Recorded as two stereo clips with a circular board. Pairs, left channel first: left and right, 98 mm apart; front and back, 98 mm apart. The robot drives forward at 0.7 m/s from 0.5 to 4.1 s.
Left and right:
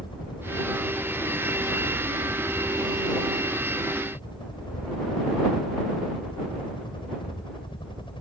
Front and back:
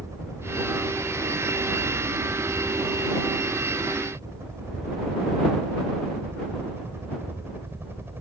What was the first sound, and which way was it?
A helicopter, 125° left.